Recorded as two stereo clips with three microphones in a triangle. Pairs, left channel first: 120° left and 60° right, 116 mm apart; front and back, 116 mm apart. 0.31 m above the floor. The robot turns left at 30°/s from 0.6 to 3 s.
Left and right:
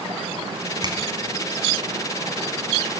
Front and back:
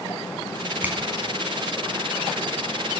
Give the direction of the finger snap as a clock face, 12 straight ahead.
4 o'clock.